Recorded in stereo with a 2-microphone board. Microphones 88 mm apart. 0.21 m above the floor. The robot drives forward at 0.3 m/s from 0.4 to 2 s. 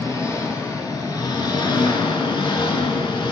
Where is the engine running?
40° left (ahead or behind), 0.8 m; by 3.3 s 70° left (ahead or behind), 0.5 m.